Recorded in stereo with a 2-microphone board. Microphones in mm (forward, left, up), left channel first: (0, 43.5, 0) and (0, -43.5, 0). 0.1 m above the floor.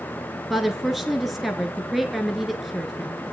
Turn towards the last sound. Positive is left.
turn(degrees=-5)  # may be behind; listen again after turning